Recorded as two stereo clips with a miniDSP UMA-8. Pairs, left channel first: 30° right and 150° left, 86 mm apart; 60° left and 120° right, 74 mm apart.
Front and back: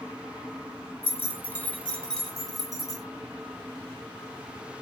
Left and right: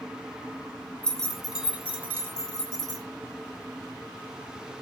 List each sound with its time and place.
1.0 s keys jangling: 5° right, 0.8 m; by 3.0 s 130° right, 1.0 m